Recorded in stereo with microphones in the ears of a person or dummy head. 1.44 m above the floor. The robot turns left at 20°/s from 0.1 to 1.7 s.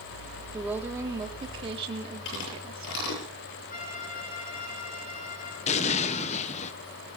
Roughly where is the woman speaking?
Centre.